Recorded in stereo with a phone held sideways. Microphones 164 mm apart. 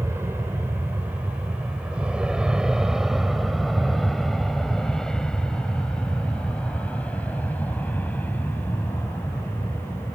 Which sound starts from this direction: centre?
An aircraft, at 0.0 s.